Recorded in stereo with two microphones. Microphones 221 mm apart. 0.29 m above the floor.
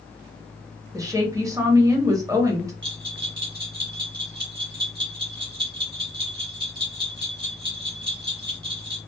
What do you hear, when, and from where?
0.9 s a woman speaking: 15° right (ahead or behind), 0.9 m
2.8 s a bell: 55° right (ahead or behind), 1.4 m